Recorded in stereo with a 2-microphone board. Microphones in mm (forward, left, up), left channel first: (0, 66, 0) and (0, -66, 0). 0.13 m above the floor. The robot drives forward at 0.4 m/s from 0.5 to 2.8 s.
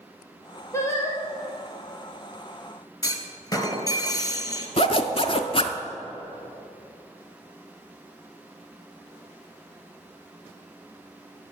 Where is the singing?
20° left (ahead or behind), 2 m.